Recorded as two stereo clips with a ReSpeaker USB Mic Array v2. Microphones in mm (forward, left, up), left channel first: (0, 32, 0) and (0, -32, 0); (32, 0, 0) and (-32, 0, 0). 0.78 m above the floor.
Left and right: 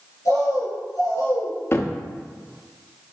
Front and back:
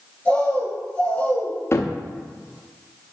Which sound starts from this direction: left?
A bird, at 0.2 s.